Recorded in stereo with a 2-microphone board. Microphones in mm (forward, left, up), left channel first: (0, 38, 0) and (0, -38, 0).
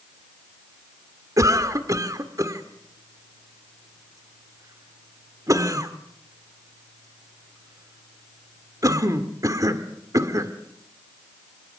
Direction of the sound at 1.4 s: 45° right (ahead or behind).